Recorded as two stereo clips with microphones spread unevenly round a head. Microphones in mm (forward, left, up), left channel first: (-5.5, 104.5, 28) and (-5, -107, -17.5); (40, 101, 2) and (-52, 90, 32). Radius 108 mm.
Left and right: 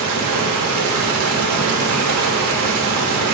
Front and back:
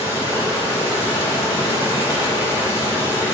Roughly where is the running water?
Right.